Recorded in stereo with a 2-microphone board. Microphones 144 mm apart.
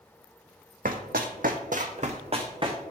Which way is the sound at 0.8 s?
70° right (ahead or behind).